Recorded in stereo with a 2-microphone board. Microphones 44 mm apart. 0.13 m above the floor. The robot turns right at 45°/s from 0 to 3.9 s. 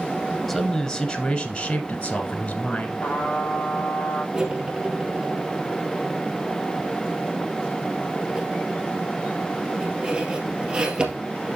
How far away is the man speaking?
About 1.1 m.